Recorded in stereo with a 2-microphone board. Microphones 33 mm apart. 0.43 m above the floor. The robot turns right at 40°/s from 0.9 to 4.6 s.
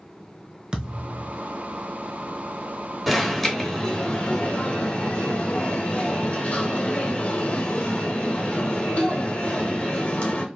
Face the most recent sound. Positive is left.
turn(degrees=55)